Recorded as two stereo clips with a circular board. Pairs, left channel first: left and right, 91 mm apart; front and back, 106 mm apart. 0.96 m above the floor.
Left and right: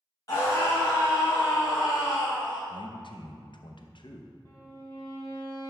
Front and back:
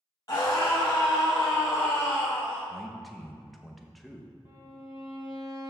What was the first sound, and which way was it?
A scream, 50° left.